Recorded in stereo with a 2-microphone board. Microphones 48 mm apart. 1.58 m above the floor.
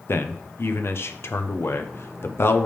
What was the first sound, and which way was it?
A man speaking, 60° left (ahead or behind).